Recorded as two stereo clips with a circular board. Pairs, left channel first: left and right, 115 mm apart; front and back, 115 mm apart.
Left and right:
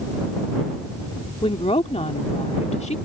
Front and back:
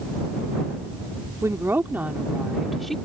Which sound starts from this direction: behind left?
A woman speaking, at 1.4 s.